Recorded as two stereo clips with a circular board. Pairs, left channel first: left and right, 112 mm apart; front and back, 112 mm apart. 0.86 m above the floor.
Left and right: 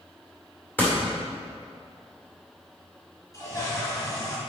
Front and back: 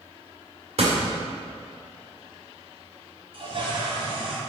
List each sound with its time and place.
0.8 s a door slam: 160° left, 2 m
3.3 s a toilet flushing: 145° left, 1.6 m